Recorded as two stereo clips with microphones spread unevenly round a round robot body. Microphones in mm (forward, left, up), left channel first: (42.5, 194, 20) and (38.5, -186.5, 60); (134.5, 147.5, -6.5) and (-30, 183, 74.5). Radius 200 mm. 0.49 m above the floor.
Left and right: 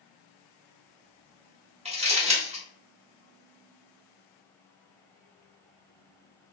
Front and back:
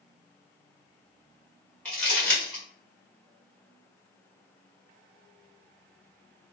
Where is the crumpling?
20° right, 1.5 m.